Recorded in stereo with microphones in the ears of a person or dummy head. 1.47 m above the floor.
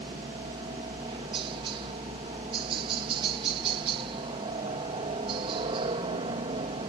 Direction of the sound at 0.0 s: 30° right (ahead or behind).